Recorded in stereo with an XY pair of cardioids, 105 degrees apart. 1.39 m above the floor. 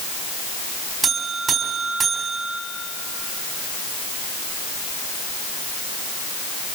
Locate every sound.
1.0 s a buzzer: 45° right, 4.5 m